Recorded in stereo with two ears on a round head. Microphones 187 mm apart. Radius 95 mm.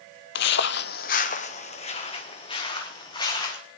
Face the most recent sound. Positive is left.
turn(degrees=20)  # may be behind; listen again after turning